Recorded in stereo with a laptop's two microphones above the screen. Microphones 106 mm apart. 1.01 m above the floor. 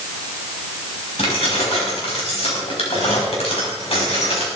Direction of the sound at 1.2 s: 70° left (ahead or behind).